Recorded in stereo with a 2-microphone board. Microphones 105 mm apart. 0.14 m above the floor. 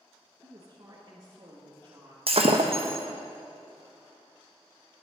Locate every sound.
0.4 s a woman speaking: 35° right (ahead or behind), 1.6 m
2.3 s breaking glass: 65° right (ahead or behind), 1.2 m